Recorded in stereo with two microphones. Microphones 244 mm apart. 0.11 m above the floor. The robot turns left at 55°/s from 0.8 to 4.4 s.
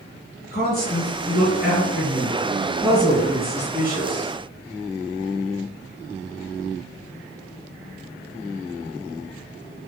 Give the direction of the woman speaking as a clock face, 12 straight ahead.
8 o'clock.